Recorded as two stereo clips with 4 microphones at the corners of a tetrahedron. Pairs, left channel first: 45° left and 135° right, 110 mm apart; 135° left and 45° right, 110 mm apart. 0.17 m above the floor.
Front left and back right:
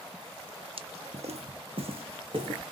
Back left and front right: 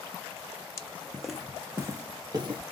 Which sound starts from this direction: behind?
Footsteps, at 0.8 s.